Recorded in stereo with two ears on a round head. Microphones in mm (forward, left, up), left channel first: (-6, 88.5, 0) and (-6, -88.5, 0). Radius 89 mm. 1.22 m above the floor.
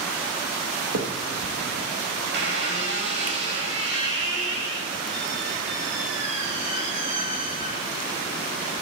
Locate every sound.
0.9 s a finger snap: 75° right (ahead or behind), 1.4 m
2.3 s a squeak: 60° right (ahead or behind), 7.5 m